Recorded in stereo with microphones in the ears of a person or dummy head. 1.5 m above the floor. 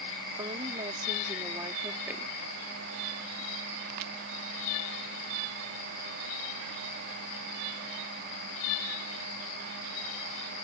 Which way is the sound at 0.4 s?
30° right (ahead or behind).